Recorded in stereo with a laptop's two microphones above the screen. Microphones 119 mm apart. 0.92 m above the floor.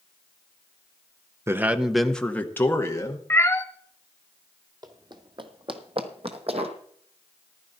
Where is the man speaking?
20° right (ahead or behind), 0.7 m; by 3.2 s 25° left (ahead or behind), 1.4 m.